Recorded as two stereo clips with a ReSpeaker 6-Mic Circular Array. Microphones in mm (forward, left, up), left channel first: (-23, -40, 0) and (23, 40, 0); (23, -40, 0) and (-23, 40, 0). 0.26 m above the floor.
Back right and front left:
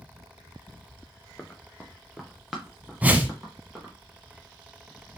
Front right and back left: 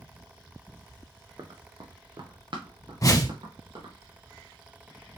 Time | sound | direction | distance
1.4 | running footsteps | 160° left | 0.8 m
3.0 | a whoosh | 10° right | 0.6 m